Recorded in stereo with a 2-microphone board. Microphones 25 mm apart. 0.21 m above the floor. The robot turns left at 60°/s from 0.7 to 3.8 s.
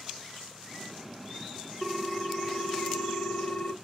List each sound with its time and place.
1.8 s a ringtone: straight behind, 0.9 m; by 3.7 s 65° left, 0.9 m